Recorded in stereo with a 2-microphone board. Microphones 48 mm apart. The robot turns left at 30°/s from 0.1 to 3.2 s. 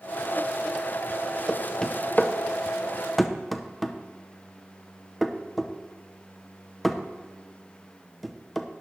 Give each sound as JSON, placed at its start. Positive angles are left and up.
{"t": 1.5, "sound": "knocking", "side_deg": 20, "distance_m": 0.6}